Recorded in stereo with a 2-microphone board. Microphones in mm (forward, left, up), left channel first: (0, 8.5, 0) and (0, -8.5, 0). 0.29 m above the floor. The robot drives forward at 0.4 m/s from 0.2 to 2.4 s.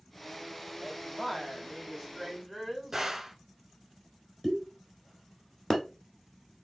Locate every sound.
0.8 s a woman speaking: 5° left (ahead or behind), 1.2 m
2.9 s a gunshot: 25° right (ahead or behind), 1.6 m
4.4 s a pop: 15° left (ahead or behind), 1.2 m